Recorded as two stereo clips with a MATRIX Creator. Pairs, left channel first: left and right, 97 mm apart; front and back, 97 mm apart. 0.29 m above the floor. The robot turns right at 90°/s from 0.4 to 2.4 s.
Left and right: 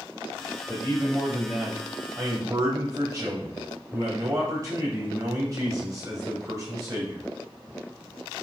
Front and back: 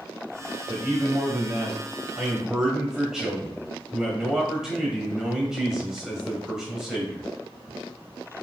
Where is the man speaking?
110° left, 1.2 m; by 7.2 s 100° right, 1.2 m.